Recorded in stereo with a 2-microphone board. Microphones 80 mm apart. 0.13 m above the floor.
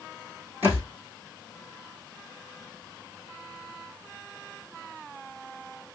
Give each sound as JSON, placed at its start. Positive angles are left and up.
{"t": 0.6, "sound": "a thud", "side_deg": -20, "distance_m": 3.0}